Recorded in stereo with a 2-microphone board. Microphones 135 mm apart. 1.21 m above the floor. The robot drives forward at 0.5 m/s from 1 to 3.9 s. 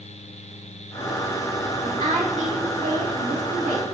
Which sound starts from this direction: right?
A woman speaking, at 1.8 s.